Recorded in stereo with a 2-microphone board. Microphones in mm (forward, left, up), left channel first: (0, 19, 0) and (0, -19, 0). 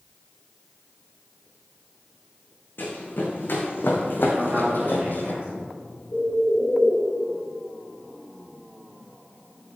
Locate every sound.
2.8 s running footsteps: 60° left (ahead or behind), 2.5 m; by 5.3 s 55° left (ahead or behind), 1.7 m
4.3 s a man speaking: 35° right (ahead or behind), 4 m
6.1 s a bird: 40° left (ahead or behind), 1.2 m